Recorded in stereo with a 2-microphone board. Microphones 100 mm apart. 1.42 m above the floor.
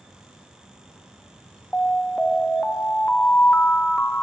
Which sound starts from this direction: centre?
An alarm, at 1.7 s.